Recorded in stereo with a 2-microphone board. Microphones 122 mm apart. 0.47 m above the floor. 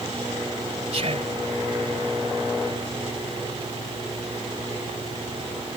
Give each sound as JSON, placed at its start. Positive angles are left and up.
{"t": 0.9, "sound": "whispering", "side_deg": -60}